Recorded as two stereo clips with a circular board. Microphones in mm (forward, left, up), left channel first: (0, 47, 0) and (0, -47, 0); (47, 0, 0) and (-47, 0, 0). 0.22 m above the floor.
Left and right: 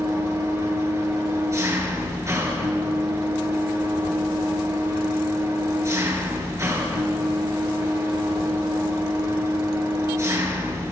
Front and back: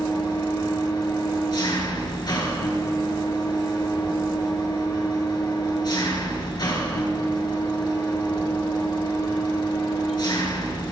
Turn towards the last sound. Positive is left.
turn(degrees=-35)